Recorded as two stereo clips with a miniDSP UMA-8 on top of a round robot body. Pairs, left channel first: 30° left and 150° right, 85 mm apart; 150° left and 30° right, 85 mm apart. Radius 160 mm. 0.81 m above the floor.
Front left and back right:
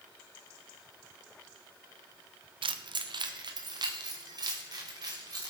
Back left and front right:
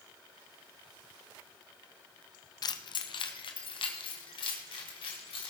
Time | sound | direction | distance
2.6 | keys jangling | 170° right | 0.6 m